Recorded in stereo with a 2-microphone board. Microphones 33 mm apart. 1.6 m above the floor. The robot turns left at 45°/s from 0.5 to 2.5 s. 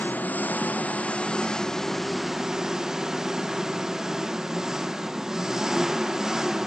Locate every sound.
0.0 s an engine running: 75° left, 1.3 m; by 6.7 s 15° right, 1.3 m